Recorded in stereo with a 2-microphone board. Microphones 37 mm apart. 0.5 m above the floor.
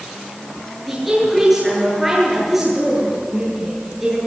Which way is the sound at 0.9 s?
10° right (ahead or behind).